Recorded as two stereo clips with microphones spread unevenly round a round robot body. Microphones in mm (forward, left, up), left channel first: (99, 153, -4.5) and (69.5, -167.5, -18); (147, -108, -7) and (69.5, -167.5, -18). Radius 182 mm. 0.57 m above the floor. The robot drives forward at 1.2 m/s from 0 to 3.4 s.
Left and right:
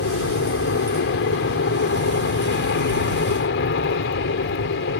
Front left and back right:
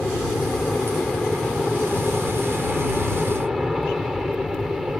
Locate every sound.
0.0 s an aircraft: 125° left; by 5.0 s 130° left